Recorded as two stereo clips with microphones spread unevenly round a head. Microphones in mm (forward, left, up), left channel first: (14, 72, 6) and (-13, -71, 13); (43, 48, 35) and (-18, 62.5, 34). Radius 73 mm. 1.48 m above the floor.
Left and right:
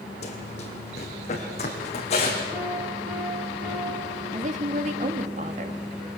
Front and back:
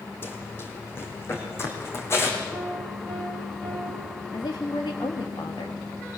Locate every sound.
0.2 s running footsteps: 35° left, 3 m; by 2.4 s 30° left, 4.5 m
2.5 s a piano: 95° right, 5.5 m
4.3 s a woman speaking: 60° right, 2 m